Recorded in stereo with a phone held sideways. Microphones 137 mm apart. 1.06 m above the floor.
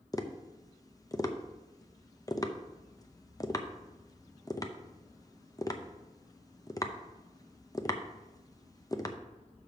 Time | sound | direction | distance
0.1 | tapping | 25° left (ahead or behind) | 0.6 m